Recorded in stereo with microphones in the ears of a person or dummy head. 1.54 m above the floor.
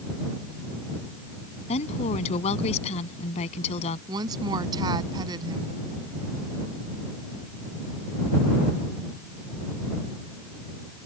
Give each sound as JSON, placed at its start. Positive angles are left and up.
{"t": 1.7, "sound": "a woman speaking", "side_deg": 35}
{"t": 4.1, "sound": "a woman speaking", "side_deg": -25}